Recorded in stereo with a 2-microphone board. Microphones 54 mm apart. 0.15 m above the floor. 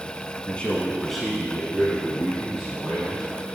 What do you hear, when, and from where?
0.5 s a man speaking: 25° left (ahead or behind), 1.1 m; by 3.5 s 25° right (ahead or behind), 3 m